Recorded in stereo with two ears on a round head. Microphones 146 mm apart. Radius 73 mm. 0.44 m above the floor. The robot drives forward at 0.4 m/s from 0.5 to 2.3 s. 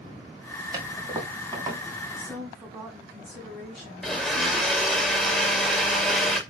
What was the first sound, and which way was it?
A toilet flushing, 25° right (ahead or behind).